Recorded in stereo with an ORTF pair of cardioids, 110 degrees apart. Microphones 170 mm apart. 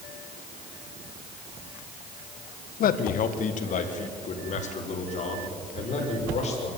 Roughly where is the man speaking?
Ahead left.